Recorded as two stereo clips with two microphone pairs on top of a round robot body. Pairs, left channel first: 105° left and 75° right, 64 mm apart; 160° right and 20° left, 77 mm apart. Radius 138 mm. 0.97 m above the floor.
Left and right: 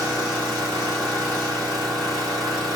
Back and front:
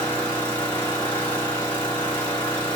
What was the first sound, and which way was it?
An engine running, 85° right.